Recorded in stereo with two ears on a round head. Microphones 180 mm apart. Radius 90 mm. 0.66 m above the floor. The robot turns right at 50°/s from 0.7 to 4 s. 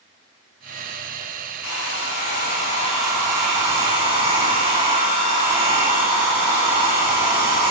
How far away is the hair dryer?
About 3.5 m.